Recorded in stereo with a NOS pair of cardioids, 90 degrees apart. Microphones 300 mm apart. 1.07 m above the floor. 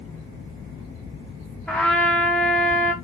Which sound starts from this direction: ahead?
A trumpet, at 1.7 s.